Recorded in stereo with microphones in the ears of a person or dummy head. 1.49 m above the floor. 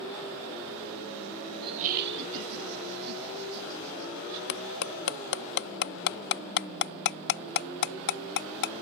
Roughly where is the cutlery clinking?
Left.